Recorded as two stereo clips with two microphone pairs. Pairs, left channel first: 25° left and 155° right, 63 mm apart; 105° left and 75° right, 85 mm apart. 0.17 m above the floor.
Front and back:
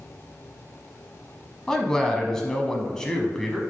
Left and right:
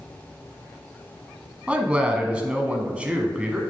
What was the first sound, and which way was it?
A man speaking, 30° right.